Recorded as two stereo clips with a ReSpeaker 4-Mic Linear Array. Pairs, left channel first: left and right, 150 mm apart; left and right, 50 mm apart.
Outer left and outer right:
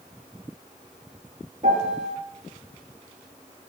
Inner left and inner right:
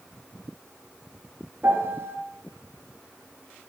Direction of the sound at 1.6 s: 50° right (ahead or behind).